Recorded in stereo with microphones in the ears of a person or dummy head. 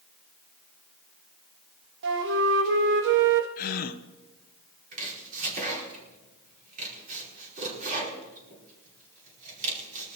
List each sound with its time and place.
2.0 s a flute: 65° right (ahead or behind), 1.2 m
3.6 s a gasp: 50° left (ahead or behind), 0.8 m
4.9 s chopping: 45° right (ahead or behind), 5 m